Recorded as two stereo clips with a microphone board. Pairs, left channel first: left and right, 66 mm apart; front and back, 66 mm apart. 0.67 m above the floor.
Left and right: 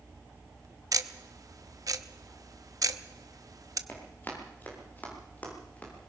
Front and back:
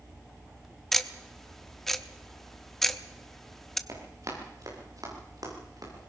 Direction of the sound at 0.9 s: 85° right.